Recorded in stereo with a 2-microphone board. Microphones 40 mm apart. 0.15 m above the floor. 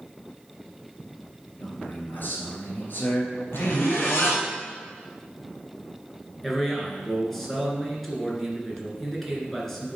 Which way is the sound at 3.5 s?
75° left (ahead or behind).